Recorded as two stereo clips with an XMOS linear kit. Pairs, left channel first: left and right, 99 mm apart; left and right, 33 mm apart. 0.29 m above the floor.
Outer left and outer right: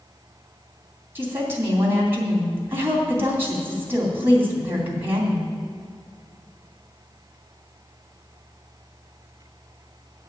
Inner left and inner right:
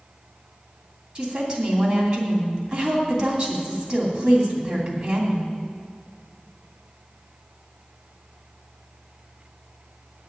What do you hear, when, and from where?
1.1 s a woman speaking: 20° right (ahead or behind), 2.5 m